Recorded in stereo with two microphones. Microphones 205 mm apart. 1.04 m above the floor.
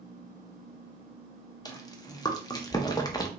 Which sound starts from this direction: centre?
Chewing, at 1.6 s.